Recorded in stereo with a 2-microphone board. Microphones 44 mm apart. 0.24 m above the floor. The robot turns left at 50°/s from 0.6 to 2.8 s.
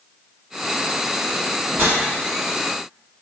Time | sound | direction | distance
1.7 | a whoosh | 55° right (ahead or behind) | 1.5 m